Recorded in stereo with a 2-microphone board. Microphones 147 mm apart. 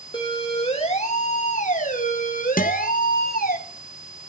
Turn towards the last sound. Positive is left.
turn(degrees=70)  # may be behind; listen again after turning